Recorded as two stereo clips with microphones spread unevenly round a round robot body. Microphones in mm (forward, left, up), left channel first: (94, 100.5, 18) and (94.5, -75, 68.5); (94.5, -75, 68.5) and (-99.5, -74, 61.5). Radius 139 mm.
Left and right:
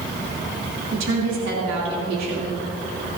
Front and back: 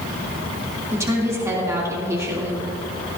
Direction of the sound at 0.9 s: 105° right.